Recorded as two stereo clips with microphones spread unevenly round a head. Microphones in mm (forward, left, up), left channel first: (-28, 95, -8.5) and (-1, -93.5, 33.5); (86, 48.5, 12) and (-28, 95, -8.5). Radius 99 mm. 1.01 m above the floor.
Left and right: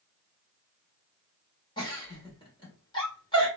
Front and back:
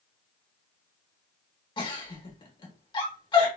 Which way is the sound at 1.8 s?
30° left.